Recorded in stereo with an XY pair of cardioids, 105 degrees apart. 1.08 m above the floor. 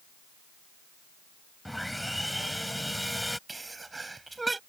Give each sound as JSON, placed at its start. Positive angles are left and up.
{"t": 1.6, "sound": "sawing", "azimuth_deg": 5}
{"t": 3.5, "sound": "a sneeze", "azimuth_deg": -15}